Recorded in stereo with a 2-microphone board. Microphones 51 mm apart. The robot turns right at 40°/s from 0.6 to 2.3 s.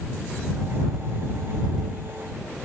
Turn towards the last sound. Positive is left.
No sound to turn to.